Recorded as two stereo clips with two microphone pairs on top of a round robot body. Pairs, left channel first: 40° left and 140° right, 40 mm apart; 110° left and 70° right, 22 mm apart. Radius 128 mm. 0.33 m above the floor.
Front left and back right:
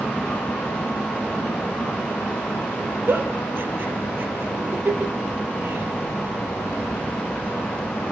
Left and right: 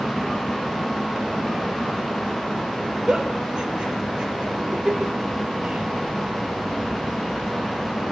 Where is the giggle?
110° right, 4 m.